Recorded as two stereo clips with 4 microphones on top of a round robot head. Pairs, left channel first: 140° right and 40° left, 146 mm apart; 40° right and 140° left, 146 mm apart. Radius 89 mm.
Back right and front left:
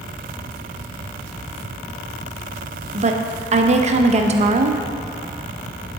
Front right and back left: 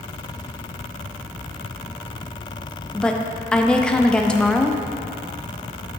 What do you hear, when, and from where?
2.9 s a woman speaking: 45° left, 0.5 m